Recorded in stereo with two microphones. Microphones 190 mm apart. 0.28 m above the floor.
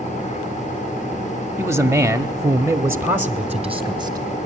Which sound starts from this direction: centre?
A man speaking, at 1.6 s.